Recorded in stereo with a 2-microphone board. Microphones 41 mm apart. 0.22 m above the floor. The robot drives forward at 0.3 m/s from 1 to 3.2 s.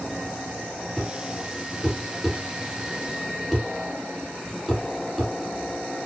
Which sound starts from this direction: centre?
A thud, at 1.0 s.